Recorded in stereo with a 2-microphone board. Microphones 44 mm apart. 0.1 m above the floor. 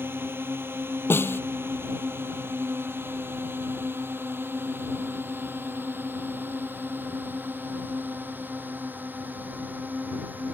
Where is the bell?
No bell in this recording.